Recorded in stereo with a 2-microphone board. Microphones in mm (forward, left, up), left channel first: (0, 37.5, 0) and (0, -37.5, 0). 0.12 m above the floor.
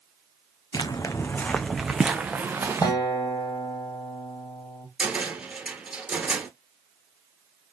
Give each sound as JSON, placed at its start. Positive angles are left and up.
{"t": 0.7, "sound": "footsteps", "side_deg": 65, "distance_m": 0.6}
{"t": 2.8, "sound": "a guitar", "side_deg": 65, "distance_m": 2.0}
{"t": 5.0, "sound": "a cupboard door", "side_deg": -15, "distance_m": 1.4}